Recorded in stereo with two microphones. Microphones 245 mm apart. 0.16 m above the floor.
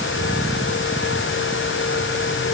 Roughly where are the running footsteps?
I don't hear running footsteps.